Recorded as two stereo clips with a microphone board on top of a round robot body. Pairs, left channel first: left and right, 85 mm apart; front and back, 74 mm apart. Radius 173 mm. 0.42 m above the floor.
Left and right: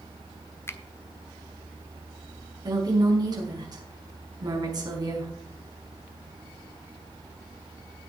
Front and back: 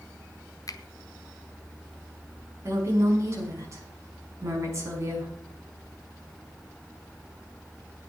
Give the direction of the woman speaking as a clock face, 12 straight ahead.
4 o'clock.